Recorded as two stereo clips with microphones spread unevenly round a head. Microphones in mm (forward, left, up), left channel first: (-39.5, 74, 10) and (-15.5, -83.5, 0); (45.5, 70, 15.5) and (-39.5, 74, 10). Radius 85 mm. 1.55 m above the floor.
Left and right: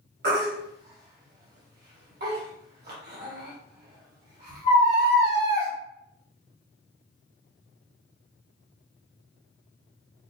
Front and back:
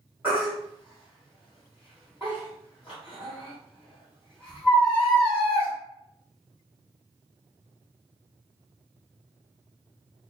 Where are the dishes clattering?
I don't hear dishes clattering.